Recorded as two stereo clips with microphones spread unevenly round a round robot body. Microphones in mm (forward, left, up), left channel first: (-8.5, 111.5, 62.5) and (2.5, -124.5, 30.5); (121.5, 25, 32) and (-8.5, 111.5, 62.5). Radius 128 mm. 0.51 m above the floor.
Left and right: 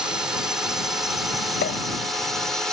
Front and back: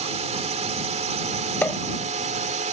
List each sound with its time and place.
0.0 s a drone: 165° right; by 2.7 s 170° right
1.6 s a pop: 45° left